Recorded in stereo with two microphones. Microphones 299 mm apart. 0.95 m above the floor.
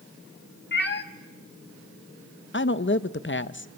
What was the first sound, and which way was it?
A cat meowing, 35° left (ahead or behind).